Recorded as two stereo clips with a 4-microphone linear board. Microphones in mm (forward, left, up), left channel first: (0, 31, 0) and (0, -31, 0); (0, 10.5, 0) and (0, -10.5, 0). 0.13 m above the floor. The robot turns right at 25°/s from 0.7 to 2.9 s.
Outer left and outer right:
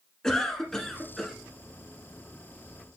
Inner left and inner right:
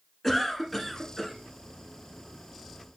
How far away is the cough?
About 1.3 m.